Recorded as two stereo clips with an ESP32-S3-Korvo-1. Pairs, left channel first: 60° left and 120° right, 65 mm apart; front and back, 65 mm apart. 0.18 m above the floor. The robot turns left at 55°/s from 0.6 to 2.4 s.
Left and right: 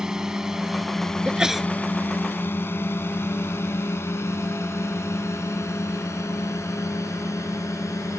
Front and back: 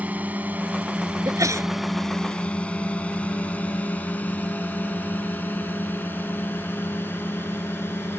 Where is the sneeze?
170° left; by 1.7 s 150° left.